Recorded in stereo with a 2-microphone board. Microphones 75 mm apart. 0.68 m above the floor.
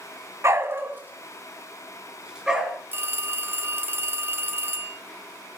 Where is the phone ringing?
30° right (ahead or behind), 1.1 m.